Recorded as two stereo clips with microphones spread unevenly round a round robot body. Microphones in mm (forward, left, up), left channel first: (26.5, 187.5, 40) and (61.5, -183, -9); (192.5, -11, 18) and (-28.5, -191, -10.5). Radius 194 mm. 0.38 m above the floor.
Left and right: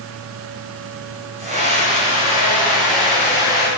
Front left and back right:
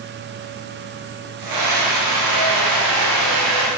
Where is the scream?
155° right, 3.5 m; by 3.7 s 175° left, 2.5 m.